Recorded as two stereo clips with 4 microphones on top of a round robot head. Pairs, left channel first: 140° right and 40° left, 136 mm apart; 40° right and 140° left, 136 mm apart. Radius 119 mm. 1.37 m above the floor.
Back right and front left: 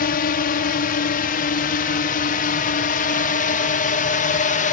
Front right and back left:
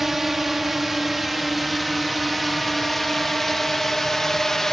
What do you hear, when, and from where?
0.0 s a drone: 135° right; by 4.7 s 130° right